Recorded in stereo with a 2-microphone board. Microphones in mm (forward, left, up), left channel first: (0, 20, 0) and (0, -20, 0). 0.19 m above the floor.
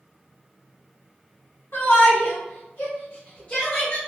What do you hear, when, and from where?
1.7 s a shout: 55° left (ahead or behind), 1.8 m; by 4.0 s 20° left (ahead or behind), 1.8 m